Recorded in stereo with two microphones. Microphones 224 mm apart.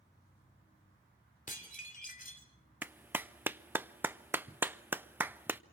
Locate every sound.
1.5 s dishes clattering: 35° left (ahead or behind), 3 m
2.8 s a clap: 10° right (ahead or behind), 0.5 m